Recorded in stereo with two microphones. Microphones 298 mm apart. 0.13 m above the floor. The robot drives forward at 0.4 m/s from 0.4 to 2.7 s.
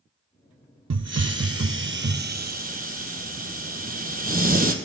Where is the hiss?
65° right (ahead or behind), 0.5 m; by 4.7 s 30° right (ahead or behind), 0.9 m.